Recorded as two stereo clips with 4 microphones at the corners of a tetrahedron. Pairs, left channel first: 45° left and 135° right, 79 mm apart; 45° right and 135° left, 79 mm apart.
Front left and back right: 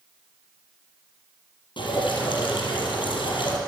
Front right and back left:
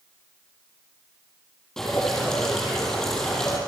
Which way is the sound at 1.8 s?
40° left.